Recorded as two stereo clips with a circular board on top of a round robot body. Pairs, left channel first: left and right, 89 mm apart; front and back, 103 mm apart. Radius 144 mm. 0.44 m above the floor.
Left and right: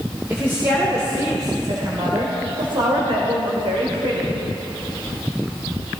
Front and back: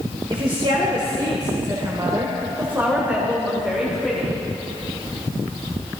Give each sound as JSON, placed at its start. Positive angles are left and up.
{"t": 0.3, "sound": "a woman speaking", "azimuth_deg": -160, "distance_m": 2.5}